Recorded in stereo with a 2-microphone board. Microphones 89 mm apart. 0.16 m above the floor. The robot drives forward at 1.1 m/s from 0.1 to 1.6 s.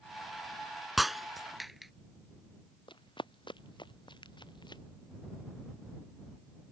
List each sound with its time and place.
1.0 s breaking glass: centre (ahead or behind)
2.9 s running footsteps: 70° left (ahead or behind); by 4.8 s 60° left (ahead or behind)